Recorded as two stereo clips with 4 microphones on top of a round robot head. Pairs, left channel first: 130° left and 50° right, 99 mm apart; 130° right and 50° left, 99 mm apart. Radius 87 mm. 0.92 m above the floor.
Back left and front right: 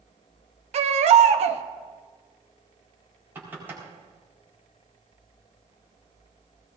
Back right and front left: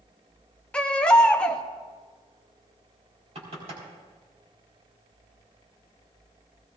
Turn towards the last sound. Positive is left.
turn(degrees=25)